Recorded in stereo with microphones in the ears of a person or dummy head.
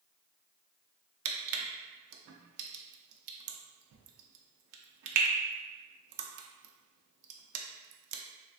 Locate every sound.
1.2 s crushing: 85° right, 0.5 m